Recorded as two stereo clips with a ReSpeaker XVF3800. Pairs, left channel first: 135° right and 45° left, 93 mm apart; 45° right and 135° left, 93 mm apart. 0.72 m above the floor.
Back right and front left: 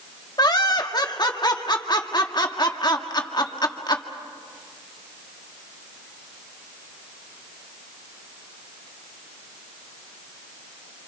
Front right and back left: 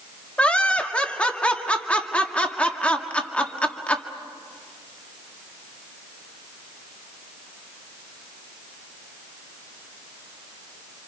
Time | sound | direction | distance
0.4 | laughter | 120° right | 1.8 m